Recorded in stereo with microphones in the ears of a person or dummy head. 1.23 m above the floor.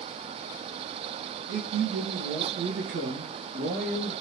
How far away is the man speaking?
About 1.1 m.